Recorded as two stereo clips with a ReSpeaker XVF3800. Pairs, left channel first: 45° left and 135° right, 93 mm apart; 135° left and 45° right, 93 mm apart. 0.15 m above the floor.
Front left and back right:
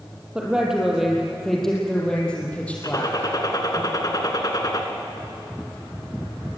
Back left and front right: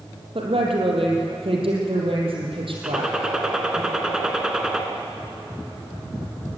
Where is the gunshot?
35° left, 1.9 m.